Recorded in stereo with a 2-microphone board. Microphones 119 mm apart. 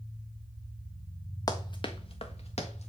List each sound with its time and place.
1.5 s running footsteps: 30° left (ahead or behind), 1.0 m; by 2.9 s 65° left (ahead or behind), 1.7 m